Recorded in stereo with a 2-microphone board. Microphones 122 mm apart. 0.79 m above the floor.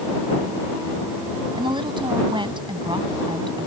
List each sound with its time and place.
1.6 s a woman speaking: 40° right (ahead or behind)